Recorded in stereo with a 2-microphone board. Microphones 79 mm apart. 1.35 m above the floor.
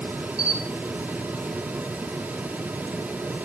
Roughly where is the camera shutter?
Centre.